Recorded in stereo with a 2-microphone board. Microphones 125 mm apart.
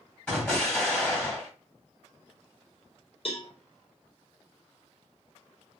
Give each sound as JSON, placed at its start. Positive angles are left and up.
{"t": 0.3, "sound": "an explosion", "side_deg": 10, "distance_m": 1.7}
{"t": 3.2, "sound": "a cowbell", "side_deg": 50, "distance_m": 0.8}